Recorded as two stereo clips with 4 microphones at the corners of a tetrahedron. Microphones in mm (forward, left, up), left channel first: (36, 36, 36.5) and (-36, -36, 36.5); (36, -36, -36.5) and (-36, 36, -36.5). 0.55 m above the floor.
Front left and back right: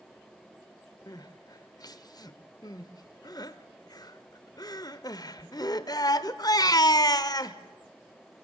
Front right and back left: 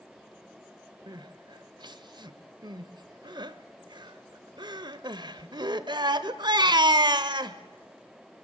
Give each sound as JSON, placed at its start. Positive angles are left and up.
{"t": 1.1, "sound": "crying", "azimuth_deg": 95, "distance_m": 1.0}